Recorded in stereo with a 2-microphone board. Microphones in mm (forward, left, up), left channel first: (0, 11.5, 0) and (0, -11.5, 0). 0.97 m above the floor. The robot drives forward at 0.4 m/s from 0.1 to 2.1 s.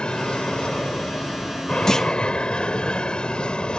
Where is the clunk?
25° left (ahead or behind).